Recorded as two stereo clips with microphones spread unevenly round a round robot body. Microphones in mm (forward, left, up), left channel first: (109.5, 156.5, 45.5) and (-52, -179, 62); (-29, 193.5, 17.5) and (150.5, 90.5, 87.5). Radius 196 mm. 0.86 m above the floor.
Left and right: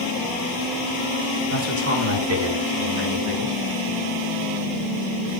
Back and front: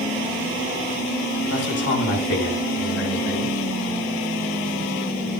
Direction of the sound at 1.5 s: 175° right.